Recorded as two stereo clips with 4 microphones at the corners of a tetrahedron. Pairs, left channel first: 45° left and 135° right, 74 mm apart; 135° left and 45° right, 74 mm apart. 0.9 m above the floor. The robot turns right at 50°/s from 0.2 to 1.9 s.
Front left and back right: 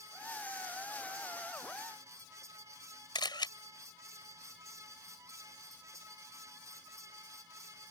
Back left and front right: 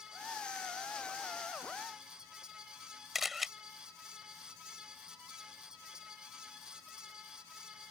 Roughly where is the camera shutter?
Ahead left.